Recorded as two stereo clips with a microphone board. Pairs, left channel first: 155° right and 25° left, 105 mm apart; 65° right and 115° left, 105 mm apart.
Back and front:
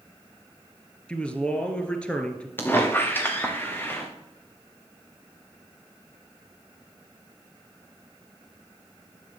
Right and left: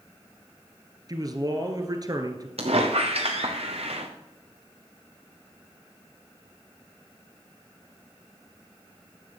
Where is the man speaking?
130° left, 1.5 m.